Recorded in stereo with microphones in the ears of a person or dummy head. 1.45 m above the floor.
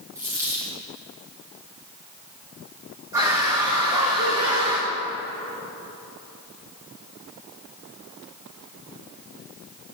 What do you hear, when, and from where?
0.1 s a dropped coin: 10° right (ahead or behind), 1.8 m
3.1 s a scream: 15° right (ahead or behind), 1.8 m